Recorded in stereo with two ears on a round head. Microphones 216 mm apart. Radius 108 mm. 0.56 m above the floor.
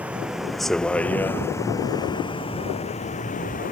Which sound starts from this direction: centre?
A vehicle, at 0.0 s.